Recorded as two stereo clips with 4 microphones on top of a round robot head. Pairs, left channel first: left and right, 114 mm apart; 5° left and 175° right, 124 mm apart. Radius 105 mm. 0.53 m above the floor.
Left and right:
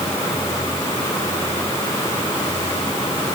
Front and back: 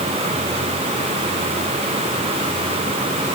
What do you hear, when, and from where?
Only background noise.